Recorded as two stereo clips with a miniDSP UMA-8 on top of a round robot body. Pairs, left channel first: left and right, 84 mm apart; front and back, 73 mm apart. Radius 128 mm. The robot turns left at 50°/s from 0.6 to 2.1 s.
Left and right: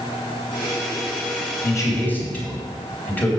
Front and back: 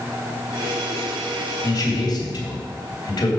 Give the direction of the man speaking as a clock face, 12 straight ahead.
10 o'clock.